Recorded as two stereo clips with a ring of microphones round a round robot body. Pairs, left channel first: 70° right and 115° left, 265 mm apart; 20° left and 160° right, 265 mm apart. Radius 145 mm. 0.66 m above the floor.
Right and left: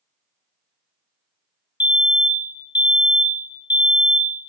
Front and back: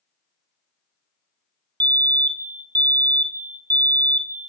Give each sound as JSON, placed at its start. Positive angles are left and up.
{"t": 1.8, "sound": "a fire alarm", "azimuth_deg": -110, "distance_m": 1.5}